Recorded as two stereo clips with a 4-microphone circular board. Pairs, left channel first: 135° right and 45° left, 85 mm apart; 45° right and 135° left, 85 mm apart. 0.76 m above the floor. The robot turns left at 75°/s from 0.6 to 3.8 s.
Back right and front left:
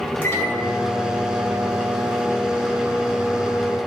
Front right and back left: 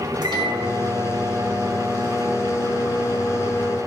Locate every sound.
0.2 s a microwave: 160° left, 2 m; by 3.8 s 80° right, 2 m